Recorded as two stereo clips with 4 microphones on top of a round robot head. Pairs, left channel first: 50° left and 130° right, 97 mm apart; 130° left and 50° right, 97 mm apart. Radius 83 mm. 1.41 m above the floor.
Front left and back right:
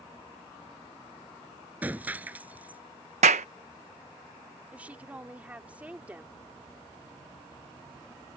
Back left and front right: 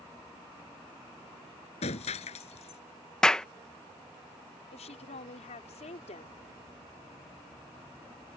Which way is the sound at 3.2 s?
145° right.